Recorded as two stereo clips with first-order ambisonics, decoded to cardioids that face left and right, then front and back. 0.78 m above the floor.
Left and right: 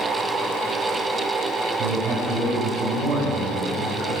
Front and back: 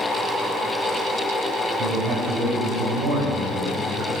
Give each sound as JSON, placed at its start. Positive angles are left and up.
{"t": 1.8, "sound": "a man speaking", "azimuth_deg": -145, "distance_m": 3.5}